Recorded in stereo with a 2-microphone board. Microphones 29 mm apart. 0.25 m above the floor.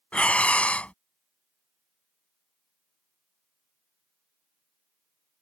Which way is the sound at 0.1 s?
55° left (ahead or behind).